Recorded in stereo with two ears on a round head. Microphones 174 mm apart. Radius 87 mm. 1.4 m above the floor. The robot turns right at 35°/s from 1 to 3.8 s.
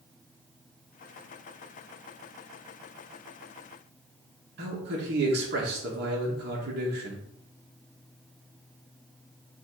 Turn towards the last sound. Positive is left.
turn(degrees=-55)  # may be behind; listen again after turning